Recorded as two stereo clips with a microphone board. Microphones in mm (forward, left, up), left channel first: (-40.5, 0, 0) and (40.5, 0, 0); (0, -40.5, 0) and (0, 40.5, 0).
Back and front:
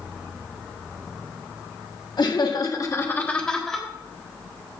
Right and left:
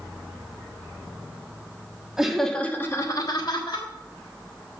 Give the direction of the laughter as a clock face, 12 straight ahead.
6 o'clock.